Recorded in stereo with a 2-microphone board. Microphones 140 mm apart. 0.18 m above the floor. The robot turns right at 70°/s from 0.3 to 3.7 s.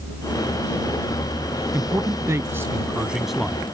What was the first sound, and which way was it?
A man speaking, 20° right (ahead or behind).